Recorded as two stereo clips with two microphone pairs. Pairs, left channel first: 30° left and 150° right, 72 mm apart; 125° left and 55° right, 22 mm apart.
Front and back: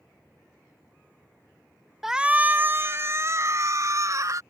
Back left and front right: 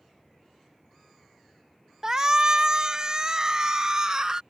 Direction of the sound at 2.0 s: 65° right.